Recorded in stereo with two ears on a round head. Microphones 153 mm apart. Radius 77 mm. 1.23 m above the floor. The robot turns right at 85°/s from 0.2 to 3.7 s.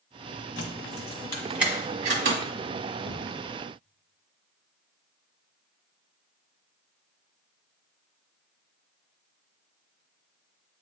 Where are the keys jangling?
80° left, 1.1 m; by 2.4 s 75° right (ahead or behind), 1.1 m.